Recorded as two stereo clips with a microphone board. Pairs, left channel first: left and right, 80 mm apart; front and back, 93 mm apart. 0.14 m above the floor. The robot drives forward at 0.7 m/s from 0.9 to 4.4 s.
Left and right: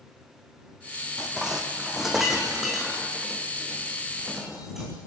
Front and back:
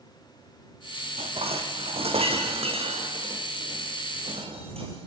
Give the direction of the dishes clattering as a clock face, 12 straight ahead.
6 o'clock.